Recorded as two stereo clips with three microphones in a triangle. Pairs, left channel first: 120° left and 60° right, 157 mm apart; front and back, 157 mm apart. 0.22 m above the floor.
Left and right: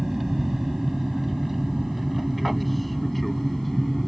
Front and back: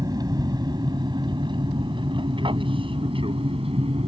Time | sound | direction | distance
0.0 | an aircraft | 145° right | ?